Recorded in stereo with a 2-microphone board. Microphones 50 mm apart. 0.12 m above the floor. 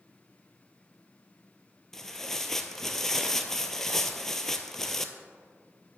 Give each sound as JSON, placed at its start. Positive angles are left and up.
{"t": 1.9, "sound": "tearing paper", "side_deg": 10, "distance_m": 0.6}